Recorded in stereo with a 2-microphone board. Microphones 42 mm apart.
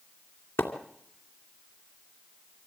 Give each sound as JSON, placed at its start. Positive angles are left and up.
{"t": 0.6, "sound": "a splash", "side_deg": 75, "distance_m": 2.5}